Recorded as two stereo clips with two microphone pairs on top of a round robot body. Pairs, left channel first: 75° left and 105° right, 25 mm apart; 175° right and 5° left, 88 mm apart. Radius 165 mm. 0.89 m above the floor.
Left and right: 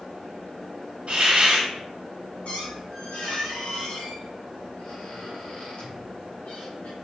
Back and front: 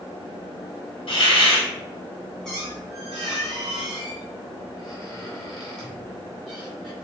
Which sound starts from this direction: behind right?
A hiss, at 1.1 s.